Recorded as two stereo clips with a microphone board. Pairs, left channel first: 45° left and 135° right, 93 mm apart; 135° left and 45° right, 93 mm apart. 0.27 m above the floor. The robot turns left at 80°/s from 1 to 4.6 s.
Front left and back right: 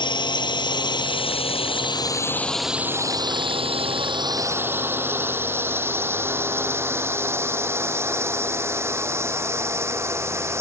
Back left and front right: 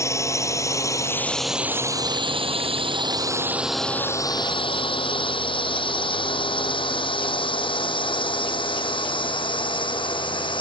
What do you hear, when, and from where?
0.0 s a drone: 80° left; by 10.6 s 165° left